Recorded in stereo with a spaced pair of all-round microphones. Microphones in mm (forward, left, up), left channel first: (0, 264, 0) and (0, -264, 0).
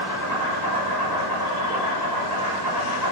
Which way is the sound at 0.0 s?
40° right (ahead or behind).